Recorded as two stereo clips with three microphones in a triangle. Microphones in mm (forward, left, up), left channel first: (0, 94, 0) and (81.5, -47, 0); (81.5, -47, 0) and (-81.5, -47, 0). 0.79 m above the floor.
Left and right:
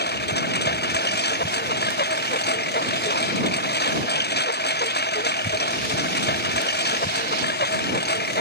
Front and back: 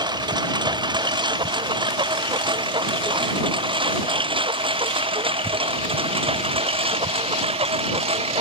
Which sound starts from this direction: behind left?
A lawn mower, at 0.0 s.